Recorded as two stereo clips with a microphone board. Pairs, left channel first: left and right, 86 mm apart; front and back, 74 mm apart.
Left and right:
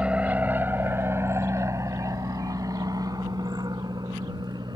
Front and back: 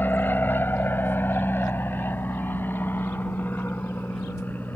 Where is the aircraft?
25° right; by 4.8 s 60° right.